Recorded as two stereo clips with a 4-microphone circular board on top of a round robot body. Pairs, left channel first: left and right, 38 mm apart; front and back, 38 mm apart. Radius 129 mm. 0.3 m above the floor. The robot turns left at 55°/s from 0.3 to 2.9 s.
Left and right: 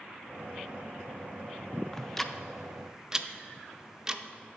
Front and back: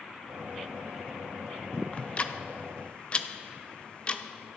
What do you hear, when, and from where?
1.9 s ticking: 25° left, 0.6 m; by 4.2 s 30° right, 0.6 m